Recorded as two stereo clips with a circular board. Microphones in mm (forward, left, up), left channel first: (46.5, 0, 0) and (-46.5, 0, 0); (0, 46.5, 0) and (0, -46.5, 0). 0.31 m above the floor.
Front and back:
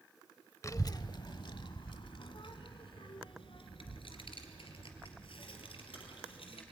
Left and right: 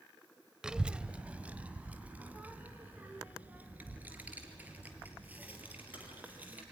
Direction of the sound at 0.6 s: 15° right.